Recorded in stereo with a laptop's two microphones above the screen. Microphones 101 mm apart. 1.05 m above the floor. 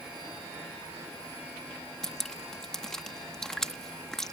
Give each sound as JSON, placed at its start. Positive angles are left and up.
{"t": 2.0, "sound": "dripping", "side_deg": 5}